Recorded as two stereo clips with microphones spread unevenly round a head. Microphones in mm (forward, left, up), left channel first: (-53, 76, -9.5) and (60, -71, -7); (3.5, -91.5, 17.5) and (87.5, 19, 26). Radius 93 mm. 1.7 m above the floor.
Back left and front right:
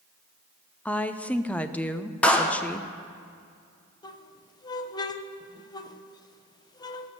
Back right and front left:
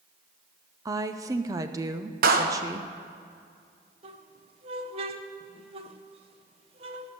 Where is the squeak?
70° left, 0.7 m.